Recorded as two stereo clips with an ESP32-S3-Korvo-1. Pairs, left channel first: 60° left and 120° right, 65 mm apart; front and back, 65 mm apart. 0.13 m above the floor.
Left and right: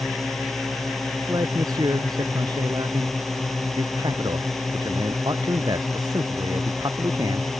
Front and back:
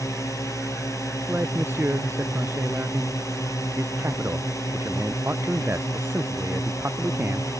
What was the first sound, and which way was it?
A drone, 25° right.